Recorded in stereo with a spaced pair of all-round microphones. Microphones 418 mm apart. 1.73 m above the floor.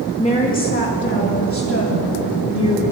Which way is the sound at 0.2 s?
15° left (ahead or behind).